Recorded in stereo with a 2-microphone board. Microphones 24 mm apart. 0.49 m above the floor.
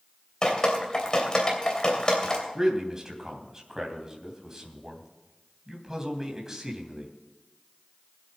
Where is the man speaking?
20° right (ahead or behind), 3 m.